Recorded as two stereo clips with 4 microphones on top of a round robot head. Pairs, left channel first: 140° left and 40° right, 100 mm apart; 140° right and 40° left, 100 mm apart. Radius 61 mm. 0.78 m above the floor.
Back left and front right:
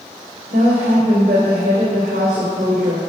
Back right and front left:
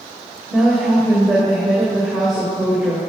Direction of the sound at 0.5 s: 50° right.